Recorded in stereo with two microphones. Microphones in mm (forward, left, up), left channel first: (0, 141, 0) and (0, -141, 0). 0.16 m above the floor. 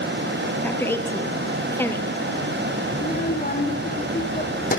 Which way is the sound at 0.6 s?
10° left (ahead or behind).